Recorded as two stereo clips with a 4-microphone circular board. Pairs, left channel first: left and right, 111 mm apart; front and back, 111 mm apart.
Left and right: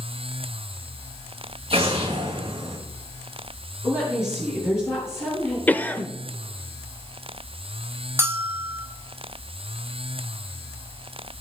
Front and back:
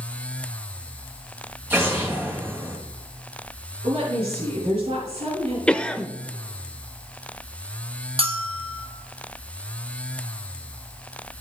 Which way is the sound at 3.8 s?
155° left.